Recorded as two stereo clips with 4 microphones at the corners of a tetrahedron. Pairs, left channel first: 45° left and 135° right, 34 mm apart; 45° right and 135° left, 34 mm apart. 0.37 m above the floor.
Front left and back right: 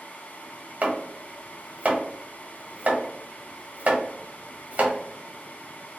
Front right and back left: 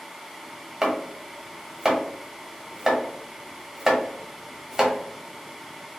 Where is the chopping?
155° right, 1.0 m.